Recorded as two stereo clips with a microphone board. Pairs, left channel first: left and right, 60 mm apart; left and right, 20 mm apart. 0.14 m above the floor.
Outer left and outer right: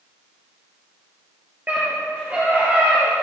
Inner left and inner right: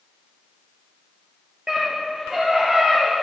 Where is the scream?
30° right (ahead or behind), 3 m; by 3.1 s 25° right (ahead or behind), 3.5 m.